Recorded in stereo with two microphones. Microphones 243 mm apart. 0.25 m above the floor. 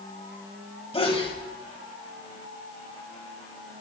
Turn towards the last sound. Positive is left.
turn(degrees=25)  # may be behind; listen again after turning